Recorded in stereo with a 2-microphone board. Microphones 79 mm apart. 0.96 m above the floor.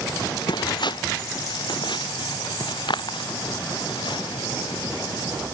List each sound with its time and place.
0.1 s footsteps: 65° left (ahead or behind); by 5.4 s 75° left (ahead or behind)